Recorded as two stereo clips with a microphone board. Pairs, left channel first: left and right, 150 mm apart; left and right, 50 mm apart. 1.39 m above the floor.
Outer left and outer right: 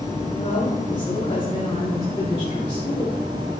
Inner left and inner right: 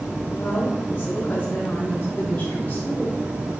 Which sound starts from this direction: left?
A woman speaking, at 0.4 s.